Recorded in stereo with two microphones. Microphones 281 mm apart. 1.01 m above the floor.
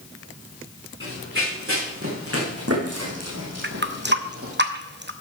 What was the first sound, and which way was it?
Running footsteps, 45° right (ahead or behind).